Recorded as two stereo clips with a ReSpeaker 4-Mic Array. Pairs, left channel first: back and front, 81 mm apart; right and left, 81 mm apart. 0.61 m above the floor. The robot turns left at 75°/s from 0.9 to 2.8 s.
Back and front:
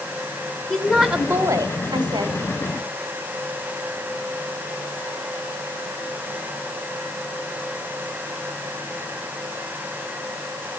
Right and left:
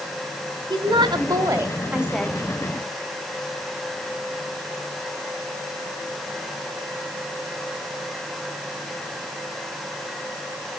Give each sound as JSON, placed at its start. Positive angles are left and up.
{"t": 0.7, "sound": "a woman speaking", "azimuth_deg": 95, "distance_m": 1.9}